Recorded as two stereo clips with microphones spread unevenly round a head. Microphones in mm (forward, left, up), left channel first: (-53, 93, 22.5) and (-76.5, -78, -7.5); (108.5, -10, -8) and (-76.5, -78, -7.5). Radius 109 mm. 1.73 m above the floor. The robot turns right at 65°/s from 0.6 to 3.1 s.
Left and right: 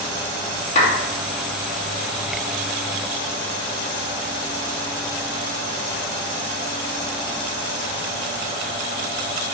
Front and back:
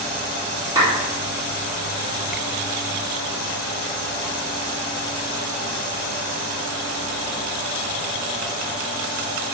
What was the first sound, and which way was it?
A clap, 125° left.